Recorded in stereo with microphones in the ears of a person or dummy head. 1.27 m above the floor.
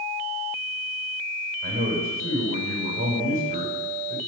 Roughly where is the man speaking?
Right.